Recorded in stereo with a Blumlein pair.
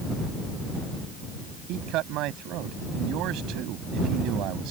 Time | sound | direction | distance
1.7 | a man speaking | 40° right | ?